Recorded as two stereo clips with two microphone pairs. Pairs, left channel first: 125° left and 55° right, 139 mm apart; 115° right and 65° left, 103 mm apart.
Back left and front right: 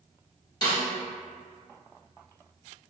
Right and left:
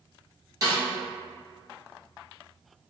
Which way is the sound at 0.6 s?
85° left.